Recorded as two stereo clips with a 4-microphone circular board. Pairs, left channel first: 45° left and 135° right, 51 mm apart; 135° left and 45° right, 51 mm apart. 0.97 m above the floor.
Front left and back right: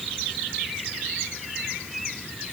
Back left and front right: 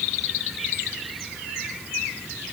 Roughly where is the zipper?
No zipper in this recording.